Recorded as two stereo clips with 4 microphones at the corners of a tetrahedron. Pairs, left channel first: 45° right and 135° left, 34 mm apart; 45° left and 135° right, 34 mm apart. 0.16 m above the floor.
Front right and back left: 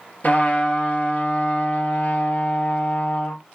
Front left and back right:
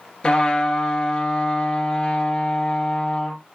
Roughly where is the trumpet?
Ahead.